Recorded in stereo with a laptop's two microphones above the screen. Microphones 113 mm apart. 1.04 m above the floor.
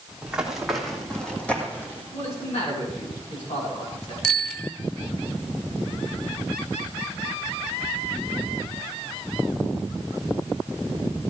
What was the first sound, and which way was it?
Running footsteps, 10° right (ahead or behind).